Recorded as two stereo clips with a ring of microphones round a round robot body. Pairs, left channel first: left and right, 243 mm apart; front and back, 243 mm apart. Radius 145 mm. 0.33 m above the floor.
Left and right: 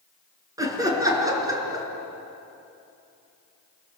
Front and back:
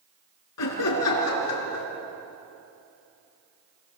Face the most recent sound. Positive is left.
turn(degrees=-15)